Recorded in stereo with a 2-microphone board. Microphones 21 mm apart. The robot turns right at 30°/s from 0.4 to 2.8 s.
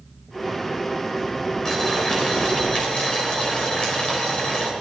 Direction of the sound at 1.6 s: 30° left.